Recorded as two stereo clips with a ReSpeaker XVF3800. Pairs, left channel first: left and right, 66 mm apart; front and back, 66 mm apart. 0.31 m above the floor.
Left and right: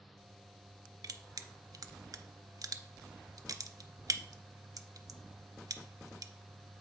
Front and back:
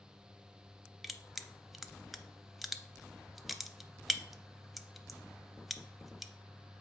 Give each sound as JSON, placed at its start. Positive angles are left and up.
{"t": 1.0, "sound": "crushing", "azimuth_deg": -90, "distance_m": 0.5}